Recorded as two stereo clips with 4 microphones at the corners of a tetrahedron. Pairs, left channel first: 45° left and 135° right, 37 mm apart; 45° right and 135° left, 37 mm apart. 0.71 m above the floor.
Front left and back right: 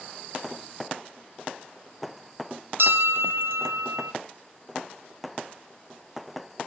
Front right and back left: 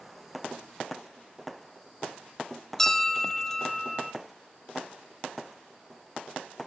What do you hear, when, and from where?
2.8 s a bell: 125° right, 1.0 m